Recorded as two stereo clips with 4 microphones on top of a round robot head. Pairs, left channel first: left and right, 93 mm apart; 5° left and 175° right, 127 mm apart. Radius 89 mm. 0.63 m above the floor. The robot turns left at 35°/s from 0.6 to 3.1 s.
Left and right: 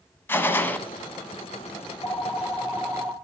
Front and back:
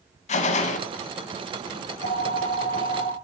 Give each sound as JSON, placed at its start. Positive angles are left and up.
{"t": 0.3, "sound": "a gunshot", "azimuth_deg": 25, "distance_m": 0.9}
{"t": 1.9, "sound": "a phone ringing", "azimuth_deg": 20, "distance_m": 1.4}